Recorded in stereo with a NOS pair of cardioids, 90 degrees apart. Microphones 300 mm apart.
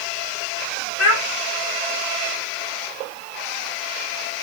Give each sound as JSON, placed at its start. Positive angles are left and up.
{"t": 1.0, "sound": "a child speaking", "azimuth_deg": 55, "distance_m": 1.6}